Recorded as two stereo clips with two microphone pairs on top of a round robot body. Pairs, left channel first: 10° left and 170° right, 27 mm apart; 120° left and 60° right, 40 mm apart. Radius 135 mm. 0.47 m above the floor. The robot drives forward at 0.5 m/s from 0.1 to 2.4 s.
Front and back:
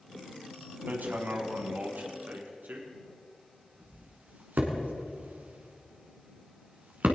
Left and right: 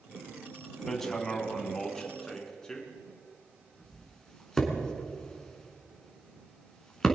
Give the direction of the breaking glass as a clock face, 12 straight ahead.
I don't hear breaking glass.